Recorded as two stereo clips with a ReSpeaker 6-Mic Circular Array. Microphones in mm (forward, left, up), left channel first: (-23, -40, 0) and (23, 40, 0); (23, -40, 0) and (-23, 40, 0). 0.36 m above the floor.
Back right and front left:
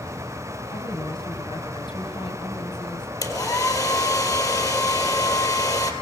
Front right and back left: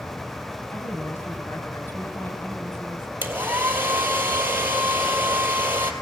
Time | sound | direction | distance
0.7 | a woman speaking | 120° right | 3 m
3.2 | a hair dryer | 170° right | 2.5 m